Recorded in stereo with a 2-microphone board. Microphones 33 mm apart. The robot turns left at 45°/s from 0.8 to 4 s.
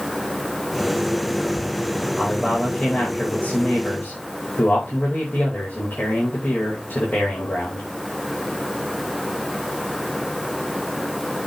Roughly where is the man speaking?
Behind.